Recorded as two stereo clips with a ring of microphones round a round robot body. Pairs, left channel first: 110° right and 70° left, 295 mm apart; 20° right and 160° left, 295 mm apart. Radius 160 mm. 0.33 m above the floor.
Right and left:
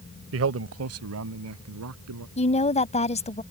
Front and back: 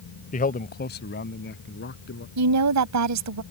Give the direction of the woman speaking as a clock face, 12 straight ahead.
6 o'clock.